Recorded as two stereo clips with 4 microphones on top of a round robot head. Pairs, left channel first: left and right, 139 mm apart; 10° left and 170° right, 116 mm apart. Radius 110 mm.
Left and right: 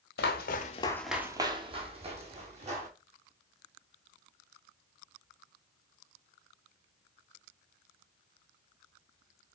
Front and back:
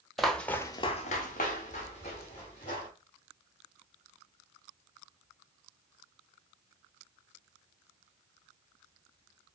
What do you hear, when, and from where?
0.2 s footsteps: 100° left, 0.8 m; by 2.9 s 50° right, 2 m